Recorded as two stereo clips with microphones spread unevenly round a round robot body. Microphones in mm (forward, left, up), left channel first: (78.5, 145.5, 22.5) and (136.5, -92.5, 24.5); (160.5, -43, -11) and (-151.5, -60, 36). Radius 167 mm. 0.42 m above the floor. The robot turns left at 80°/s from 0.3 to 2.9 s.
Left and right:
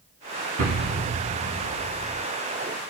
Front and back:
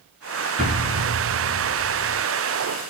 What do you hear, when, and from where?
0.6 s an explosion: 110° right, 1.0 m; by 2.2 s 120° left, 1.0 m